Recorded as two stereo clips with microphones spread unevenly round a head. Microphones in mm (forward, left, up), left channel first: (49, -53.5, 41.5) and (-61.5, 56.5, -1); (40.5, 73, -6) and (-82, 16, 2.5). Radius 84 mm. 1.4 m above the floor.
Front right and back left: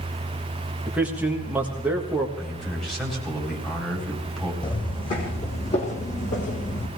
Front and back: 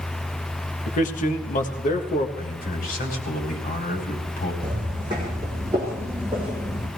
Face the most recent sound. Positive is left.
turn(degrees=-70)